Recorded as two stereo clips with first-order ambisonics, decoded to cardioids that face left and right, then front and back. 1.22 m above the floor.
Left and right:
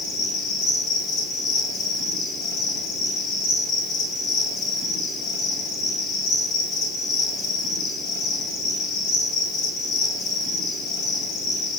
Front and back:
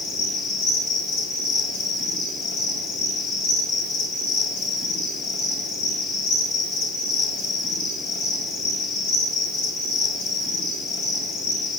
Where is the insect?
40° left, 2.5 m.